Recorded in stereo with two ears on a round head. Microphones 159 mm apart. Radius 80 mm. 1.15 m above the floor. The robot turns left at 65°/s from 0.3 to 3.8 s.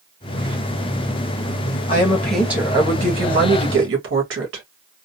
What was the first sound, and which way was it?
A woman speaking, 30° left.